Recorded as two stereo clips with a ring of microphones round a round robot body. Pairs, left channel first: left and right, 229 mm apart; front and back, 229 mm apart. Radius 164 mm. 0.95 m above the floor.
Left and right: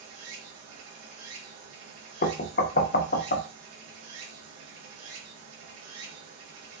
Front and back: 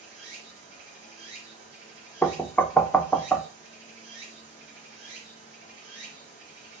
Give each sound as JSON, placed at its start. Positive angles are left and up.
{"t": 0.0, "sound": "running water", "azimuth_deg": -75, "distance_m": 1.9}
{"t": 2.2, "sound": "knocking", "azimuth_deg": 80, "distance_m": 0.6}